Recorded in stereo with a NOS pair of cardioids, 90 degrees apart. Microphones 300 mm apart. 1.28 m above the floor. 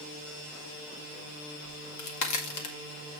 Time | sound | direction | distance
1.6 | a crack | 70° left | 2.0 m